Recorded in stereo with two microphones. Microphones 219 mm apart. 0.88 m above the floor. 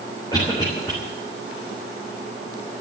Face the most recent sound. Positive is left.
turn(degrees=20)  # may be behind; listen again after turning